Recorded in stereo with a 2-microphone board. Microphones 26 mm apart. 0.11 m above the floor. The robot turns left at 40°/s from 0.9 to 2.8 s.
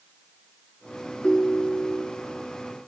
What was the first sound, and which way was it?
A ringtone, 80° left.